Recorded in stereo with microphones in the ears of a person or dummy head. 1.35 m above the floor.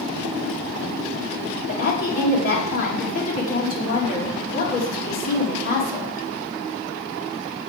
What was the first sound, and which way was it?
A woman speaking, 45° left (ahead or behind).